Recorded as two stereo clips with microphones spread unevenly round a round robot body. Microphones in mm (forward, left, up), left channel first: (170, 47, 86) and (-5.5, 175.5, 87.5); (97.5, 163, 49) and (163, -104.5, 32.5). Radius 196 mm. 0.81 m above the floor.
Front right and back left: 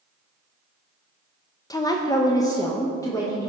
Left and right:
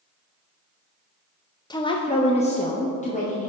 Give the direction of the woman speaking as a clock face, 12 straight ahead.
11 o'clock.